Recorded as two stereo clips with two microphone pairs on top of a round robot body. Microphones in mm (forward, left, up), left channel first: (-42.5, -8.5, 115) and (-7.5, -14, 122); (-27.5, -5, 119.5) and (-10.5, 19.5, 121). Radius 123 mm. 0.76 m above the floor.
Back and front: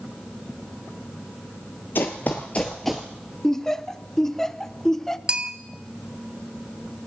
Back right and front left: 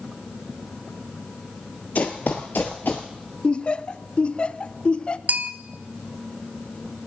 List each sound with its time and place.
1.9 s running footsteps: 155° right, 0.9 m; by 3.1 s 60° right, 0.8 m
3.4 s laughter: 135° right, 0.9 m
5.3 s a bell: 55° left, 1.3 m